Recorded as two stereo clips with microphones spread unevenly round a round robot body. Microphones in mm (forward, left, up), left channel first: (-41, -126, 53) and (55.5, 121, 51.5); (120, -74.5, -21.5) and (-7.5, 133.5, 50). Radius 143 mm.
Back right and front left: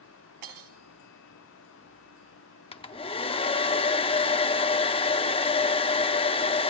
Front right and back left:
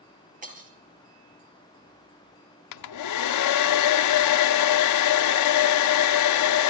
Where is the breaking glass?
70° left, 4 m.